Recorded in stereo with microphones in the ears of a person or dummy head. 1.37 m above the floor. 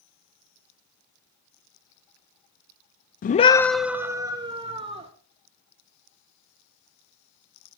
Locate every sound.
3.2 s a scream: 40° left (ahead or behind), 0.5 m; by 5.1 s 25° right (ahead or behind), 1.6 m